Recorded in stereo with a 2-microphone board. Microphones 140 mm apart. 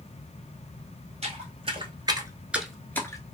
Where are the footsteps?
50° right (ahead or behind), 1.1 m; by 3.2 s 25° left (ahead or behind), 0.8 m.